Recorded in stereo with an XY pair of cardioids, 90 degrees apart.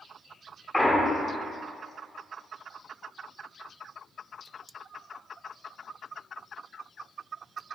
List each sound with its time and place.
0.7 s a clunk: 10° left, 0.8 m